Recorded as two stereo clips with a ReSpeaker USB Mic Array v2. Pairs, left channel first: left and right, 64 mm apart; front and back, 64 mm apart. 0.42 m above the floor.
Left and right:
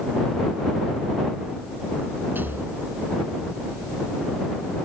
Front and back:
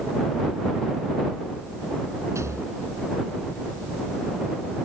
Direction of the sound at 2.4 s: 145° right.